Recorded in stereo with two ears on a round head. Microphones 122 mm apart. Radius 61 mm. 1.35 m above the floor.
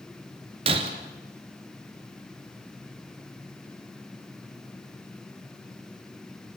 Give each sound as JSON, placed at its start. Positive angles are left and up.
{"t": 0.7, "sound": "breaking glass", "side_deg": -45, "distance_m": 2.0}